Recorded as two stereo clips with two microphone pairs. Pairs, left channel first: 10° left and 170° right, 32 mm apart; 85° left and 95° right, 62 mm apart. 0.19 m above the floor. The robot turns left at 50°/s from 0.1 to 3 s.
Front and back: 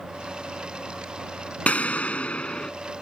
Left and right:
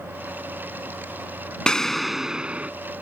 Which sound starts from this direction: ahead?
An explosion, at 1.7 s.